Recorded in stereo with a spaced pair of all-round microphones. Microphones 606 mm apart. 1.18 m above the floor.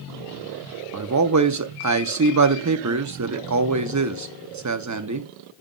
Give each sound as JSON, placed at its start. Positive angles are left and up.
{"t": 0.9, "sound": "a man speaking", "side_deg": -30, "distance_m": 0.5}